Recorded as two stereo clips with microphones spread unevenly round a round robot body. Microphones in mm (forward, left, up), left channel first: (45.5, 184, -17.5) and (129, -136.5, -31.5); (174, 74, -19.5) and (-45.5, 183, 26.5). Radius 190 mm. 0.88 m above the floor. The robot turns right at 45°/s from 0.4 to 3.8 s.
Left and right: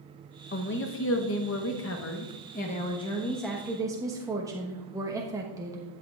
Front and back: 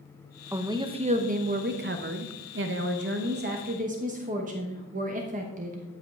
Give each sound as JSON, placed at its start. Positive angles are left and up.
{"t": 0.5, "sound": "a woman speaking", "azimuth_deg": 65, "distance_m": 0.9}